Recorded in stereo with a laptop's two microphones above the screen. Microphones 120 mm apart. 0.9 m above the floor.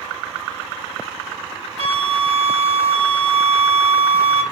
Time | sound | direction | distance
1.8 | a flute | 65° right (ahead or behind) | 1.2 m